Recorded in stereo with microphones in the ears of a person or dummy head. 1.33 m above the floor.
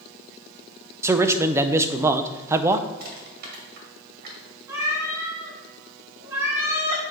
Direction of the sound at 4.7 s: 15° right (ahead or behind).